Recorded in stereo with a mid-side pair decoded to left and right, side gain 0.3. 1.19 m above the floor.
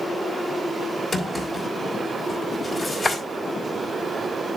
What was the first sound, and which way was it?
A drawer, 30° left.